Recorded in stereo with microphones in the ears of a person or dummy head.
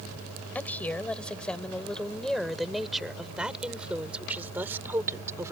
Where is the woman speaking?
10° left (ahead or behind); by 5.5 s 15° right (ahead or behind).